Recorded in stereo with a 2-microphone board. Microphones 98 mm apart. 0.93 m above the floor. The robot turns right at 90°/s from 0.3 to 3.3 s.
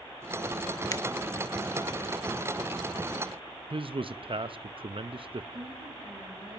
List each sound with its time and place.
0.9 s a finger snap: 40° left (ahead or behind), 0.9 m; by 1.0 s 30° left (ahead or behind), 0.9 m
3.7 s a man speaking: 60° right (ahead or behind), 0.7 m
5.5 s a woman speaking: 80° right, 10 m